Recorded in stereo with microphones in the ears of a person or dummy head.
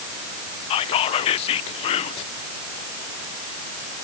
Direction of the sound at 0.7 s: 35° left (ahead or behind).